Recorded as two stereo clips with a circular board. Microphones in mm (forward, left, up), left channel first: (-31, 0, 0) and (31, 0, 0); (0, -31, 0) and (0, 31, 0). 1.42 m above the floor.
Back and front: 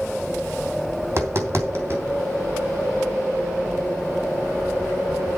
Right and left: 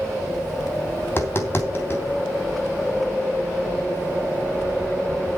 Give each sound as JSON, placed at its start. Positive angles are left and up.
{"t": 1.0, "sound": "tapping", "azimuth_deg": -40, "distance_m": 3.0}